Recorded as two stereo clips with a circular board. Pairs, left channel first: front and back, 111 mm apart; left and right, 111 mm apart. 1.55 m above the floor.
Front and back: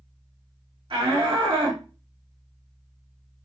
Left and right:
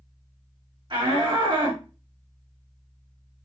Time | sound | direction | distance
0.9 | a shout | 135° right | 3.5 m